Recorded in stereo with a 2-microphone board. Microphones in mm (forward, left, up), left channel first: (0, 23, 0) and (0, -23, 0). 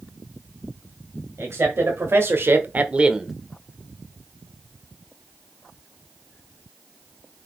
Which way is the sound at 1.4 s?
60° right (ahead or behind).